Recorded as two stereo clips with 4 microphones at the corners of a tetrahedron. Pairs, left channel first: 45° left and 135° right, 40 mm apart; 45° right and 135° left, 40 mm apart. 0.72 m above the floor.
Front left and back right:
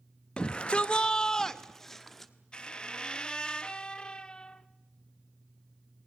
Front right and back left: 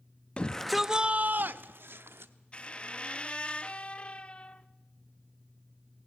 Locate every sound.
0.4 s a shout: 10° right, 0.7 m; by 2.3 s 130° left, 1.4 m
2.5 s a squeak: 10° right, 0.5 m